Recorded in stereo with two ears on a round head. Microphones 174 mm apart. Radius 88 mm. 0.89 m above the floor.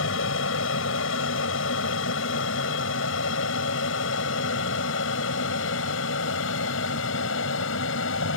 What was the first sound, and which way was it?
An aircraft, 75° left (ahead or behind).